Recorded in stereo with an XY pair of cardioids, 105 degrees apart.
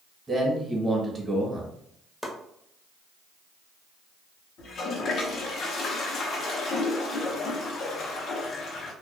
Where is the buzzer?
I don't hear a buzzer.